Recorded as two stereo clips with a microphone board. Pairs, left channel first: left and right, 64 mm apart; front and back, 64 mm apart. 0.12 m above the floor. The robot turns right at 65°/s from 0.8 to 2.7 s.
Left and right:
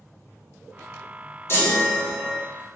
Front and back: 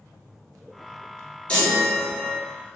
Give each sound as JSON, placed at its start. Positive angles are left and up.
{"t": 1.5, "sound": "a chime", "azimuth_deg": 65, "distance_m": 1.1}